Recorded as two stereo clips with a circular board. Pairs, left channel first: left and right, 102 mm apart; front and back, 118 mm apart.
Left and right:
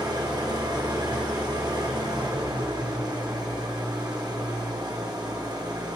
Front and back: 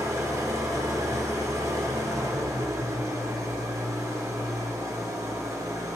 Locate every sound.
0.0 s an engine running: 125° right, 1.1 m